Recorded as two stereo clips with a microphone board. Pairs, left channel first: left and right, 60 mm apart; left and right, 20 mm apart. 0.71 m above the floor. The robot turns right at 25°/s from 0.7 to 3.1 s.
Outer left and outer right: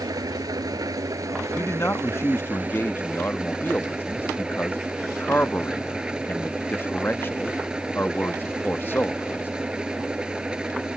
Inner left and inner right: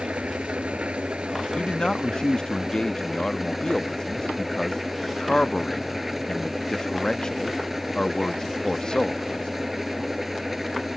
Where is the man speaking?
85° left; by 9.5 s 125° left.